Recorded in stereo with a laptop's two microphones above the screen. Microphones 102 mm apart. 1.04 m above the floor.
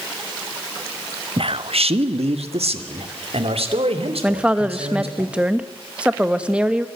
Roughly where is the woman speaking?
Centre.